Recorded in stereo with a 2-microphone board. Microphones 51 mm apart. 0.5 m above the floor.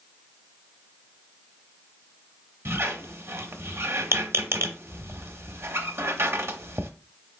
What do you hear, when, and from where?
2.6 s a squeak: 55° right (ahead or behind), 0.7 m